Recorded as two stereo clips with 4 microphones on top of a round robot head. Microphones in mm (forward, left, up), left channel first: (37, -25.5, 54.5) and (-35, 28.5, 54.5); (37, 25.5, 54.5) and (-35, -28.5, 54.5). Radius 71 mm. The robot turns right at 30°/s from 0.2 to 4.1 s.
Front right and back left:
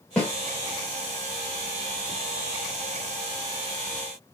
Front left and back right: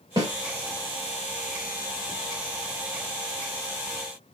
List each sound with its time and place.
0.2 s a snare drum: 115° right, 1.6 m; by 0.3 s 110° right, 1.6 m